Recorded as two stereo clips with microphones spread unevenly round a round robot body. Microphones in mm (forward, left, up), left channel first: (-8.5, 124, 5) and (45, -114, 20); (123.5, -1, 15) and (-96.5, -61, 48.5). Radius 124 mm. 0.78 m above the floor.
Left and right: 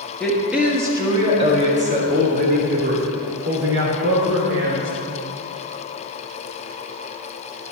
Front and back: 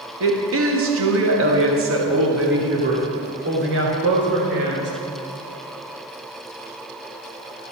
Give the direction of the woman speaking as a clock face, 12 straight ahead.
6 o'clock.